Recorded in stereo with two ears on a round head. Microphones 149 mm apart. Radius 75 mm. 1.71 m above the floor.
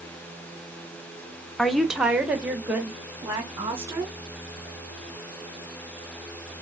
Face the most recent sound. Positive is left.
turn(degrees=-15)  # may be behind; listen again after turning